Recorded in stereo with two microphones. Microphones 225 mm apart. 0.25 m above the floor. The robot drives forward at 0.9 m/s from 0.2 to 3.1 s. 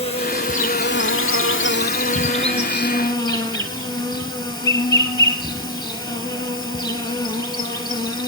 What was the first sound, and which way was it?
An insect, 30° left (ahead or behind).